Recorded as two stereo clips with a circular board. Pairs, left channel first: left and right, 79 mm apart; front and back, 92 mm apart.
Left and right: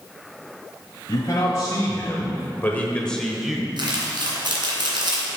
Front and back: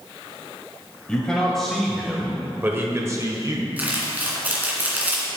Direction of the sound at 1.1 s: 75° left.